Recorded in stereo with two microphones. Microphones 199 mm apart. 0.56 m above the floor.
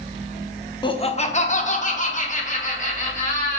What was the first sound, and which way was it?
Laughter, 20° left (ahead or behind).